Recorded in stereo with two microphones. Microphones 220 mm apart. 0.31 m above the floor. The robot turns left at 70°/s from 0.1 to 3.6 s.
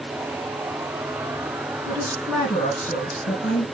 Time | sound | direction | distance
1.9 | a woman speaking | 145° right | 3 m